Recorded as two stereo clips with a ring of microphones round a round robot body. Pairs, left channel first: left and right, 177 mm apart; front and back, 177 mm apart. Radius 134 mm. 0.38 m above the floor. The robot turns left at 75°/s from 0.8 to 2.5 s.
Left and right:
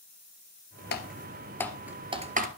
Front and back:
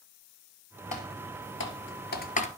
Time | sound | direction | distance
0.9 | typing on a keyboard | 65° left | 1.8 m